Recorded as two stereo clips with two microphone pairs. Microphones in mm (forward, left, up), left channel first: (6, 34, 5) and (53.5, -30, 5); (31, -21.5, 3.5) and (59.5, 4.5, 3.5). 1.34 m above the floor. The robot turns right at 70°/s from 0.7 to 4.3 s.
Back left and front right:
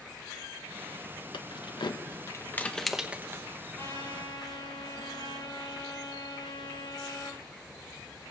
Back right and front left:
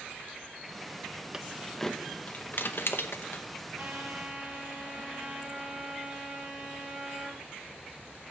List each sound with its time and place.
1.3 s keys jangling: 110° left, 0.9 m; by 3.4 s 105° right, 0.9 m
3.8 s a trumpet: 65° left, 5.5 m; by 7.4 s 105° left, 5.5 m